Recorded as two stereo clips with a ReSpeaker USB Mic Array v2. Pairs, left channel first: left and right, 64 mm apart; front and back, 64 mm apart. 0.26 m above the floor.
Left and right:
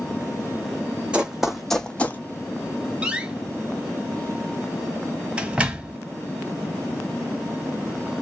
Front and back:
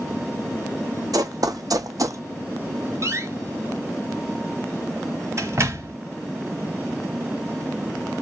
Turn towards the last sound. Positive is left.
turn(degrees=-160)